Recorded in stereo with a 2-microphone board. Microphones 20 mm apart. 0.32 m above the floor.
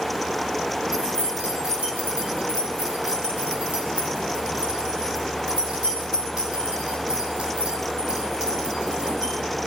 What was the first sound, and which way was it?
Keys jangling, 65° right (ahead or behind).